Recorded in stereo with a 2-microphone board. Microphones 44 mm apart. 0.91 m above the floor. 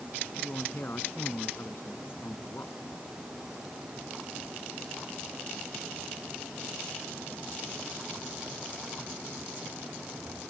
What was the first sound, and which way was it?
A man speaking, 50° left (ahead or behind).